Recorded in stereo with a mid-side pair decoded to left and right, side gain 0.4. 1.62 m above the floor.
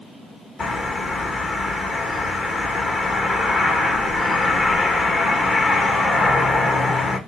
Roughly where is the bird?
Ahead left.